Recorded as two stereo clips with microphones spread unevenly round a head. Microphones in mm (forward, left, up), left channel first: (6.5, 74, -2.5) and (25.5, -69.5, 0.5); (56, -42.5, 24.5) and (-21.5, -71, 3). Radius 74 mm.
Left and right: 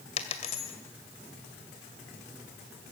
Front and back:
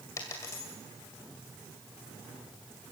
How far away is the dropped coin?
About 2 m.